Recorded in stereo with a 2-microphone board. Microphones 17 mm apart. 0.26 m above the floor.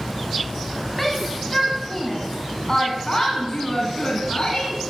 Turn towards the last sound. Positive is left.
turn(degrees=50)  # may be behind; listen again after turning